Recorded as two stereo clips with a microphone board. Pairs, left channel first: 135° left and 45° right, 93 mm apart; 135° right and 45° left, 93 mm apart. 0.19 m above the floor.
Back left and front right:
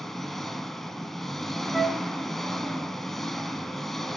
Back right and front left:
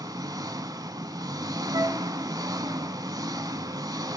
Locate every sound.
0.0 s an engine running: 50° left, 1.0 m
1.7 s a flute: 40° left, 1.2 m